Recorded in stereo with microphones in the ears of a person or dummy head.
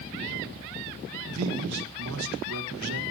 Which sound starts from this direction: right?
A man speaking, at 1.3 s.